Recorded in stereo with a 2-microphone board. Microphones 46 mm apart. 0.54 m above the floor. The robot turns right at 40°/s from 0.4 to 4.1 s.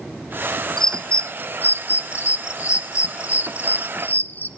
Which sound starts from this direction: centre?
A bird, at 0.8 s.